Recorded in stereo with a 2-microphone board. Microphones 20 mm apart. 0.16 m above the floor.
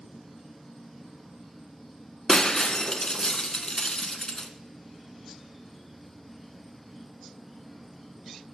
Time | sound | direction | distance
0.0 | an insect | centre (ahead or behind) | 4 m
2.3 | breaking glass | 35° left (ahead or behind) | 1.0 m